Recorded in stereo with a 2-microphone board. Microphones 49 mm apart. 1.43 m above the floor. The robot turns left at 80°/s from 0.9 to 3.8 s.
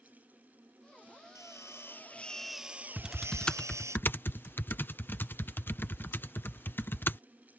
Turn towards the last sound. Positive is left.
turn(degrees=45)  # may be behind; listen again after turning